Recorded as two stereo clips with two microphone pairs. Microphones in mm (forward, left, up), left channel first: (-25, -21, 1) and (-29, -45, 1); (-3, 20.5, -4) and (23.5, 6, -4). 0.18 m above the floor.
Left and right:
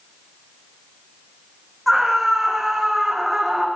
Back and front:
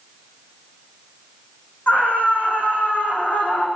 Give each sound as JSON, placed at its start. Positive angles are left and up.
{"t": 1.9, "sound": "a scream", "azimuth_deg": 175, "distance_m": 9.0}